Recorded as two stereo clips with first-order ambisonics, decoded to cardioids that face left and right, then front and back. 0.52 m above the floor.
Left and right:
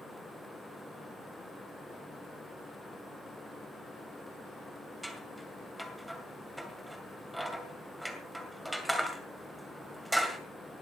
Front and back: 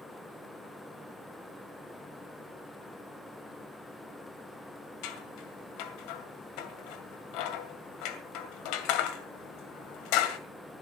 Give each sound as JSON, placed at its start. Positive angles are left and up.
{"t": 5.0, "sound": "scissors", "azimuth_deg": 0, "distance_m": 2.0}